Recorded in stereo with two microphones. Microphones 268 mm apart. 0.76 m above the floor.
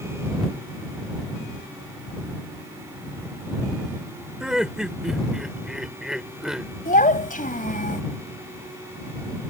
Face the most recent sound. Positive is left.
turn(degrees=30)  # may be behind; listen again after turning